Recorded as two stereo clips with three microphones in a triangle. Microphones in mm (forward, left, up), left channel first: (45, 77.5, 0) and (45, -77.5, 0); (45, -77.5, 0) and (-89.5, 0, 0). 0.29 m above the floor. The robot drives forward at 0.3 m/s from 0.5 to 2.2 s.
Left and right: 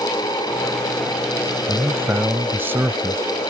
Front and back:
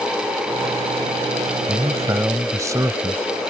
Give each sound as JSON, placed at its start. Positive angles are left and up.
{"t": 1.7, "sound": "a man speaking", "azimuth_deg": -150}